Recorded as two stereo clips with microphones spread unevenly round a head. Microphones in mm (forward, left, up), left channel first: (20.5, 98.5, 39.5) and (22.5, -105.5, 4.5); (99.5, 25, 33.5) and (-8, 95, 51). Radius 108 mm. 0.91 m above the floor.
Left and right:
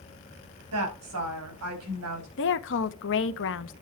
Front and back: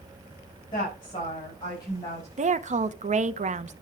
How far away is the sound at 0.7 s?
About 5 m.